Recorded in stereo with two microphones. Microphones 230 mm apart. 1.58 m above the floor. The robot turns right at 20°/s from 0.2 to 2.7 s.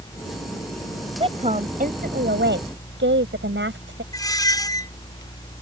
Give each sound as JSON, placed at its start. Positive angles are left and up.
{"t": 1.2, "sound": "a woman speaking", "azimuth_deg": -155}
{"t": 4.1, "sound": "a squeak", "side_deg": 15}